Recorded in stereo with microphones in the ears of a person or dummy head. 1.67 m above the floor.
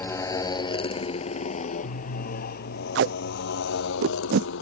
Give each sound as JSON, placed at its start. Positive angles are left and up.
{"t": 0.0, "sound": "a motorcycle", "side_deg": 10}
{"t": 3.0, "sound": "tape being pulled", "side_deg": -75}